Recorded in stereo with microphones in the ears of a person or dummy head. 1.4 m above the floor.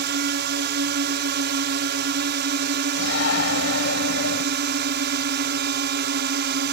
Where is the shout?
75° left (ahead or behind).